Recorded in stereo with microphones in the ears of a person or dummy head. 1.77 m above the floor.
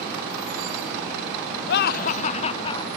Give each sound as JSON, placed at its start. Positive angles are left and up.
{"t": 1.7, "sound": "laughter", "side_deg": 65}